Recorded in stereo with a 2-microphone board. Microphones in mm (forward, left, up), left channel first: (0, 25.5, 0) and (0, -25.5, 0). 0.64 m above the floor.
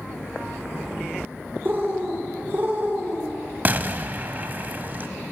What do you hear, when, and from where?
1.6 s a bird: 40° right (ahead or behind), 2 m
3.6 s an explosion: 35° right (ahead or behind), 0.5 m